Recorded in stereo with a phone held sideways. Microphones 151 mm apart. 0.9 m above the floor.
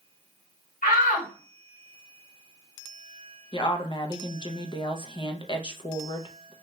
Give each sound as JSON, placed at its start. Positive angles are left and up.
{"t": 0.8, "sound": "a shout", "side_deg": 70, "distance_m": 1.7}
{"t": 3.5, "sound": "a woman speaking", "side_deg": 35, "distance_m": 0.7}